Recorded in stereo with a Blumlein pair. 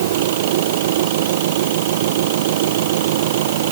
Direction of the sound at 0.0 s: 55° right.